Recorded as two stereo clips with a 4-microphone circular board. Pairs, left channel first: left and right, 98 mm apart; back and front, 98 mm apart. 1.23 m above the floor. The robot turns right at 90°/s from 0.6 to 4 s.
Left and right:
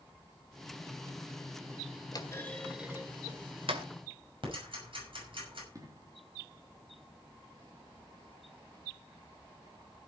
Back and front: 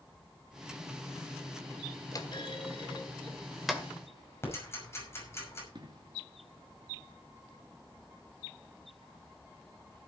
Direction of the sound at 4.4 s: 115° right.